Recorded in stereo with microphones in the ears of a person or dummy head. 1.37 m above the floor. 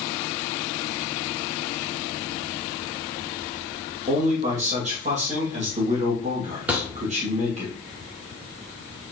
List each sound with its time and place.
4.1 s a man speaking: 40° right (ahead or behind), 2.5 m
6.7 s a thud: 5° right (ahead or behind), 1.5 m